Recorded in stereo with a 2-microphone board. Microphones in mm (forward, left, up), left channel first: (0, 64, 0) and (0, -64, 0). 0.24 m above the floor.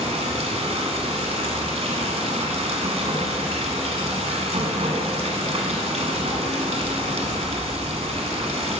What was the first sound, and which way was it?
Running water, 60° right (ahead or behind).